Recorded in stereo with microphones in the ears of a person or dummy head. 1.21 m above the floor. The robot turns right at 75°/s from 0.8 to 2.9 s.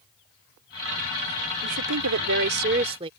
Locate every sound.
1.6 s a woman speaking: 125° right; by 3.1 s 30° right